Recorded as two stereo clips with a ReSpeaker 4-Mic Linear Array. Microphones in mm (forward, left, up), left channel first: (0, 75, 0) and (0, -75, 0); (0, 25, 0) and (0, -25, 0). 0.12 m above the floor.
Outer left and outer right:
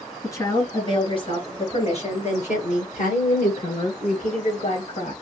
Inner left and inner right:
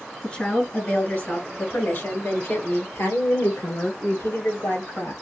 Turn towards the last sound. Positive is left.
turn(degrees=65)  # may be behind; listen again after turning